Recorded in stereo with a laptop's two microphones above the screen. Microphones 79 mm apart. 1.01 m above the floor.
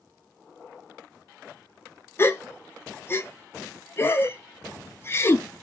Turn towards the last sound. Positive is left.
turn(degrees=30)  # may be behind; listen again after turning